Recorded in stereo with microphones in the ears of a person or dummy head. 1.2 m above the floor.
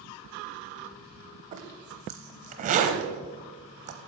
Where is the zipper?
40° right (ahead or behind), 0.9 m.